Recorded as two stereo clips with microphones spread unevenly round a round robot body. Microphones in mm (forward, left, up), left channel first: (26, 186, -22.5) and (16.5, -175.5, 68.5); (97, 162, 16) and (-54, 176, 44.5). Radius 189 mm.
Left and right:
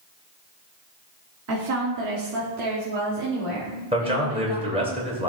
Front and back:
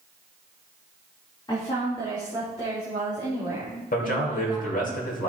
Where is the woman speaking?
40° right, 1.3 m; by 4.9 s 85° right, 3 m.